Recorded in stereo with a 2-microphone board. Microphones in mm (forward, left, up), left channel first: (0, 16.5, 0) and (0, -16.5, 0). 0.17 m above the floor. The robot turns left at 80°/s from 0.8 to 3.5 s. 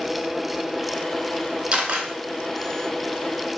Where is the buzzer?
No buzzer in this recording.